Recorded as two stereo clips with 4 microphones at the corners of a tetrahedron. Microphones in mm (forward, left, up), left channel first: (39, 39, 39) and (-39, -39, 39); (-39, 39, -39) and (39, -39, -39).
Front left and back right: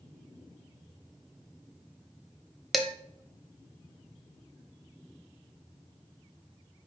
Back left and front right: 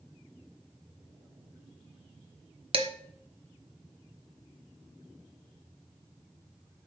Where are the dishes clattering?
45° right, 0.9 m.